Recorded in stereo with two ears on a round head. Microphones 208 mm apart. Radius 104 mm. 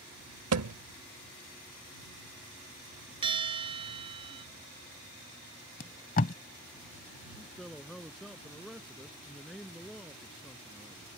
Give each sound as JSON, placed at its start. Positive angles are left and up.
{"t": 0.5, "sound": "a thud", "side_deg": -75}
{"t": 3.2, "sound": "a bell", "side_deg": -25}
{"t": 5.8, "sound": "tape being pulled", "side_deg": 40}
{"t": 7.3, "sound": "a man speaking", "side_deg": 0}